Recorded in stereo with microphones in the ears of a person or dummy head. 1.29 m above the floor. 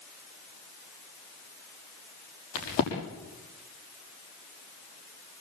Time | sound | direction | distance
2.5 | a crack | 80° left | 6.5 m